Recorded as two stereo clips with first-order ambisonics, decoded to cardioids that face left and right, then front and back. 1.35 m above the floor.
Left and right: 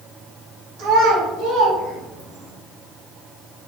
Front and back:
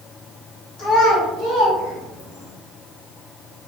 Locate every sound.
0.8 s a child speaking: 50° right, 1.2 m; by 2.5 s 25° right, 2 m